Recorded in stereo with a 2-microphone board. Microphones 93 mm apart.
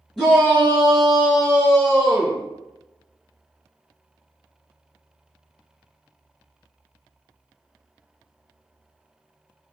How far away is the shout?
About 1.2 m.